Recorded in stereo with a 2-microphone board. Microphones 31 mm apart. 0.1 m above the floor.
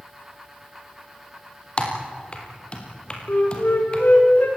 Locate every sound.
1.8 s typing on a keyboard: 35° left (ahead or behind), 3.5 m
3.3 s a flute: 65° left (ahead or behind), 5 m